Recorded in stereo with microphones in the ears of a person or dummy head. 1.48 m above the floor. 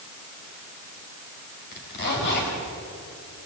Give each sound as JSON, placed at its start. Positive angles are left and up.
{"t": 1.7, "sound": "a zipper", "side_deg": 60, "distance_m": 5.0}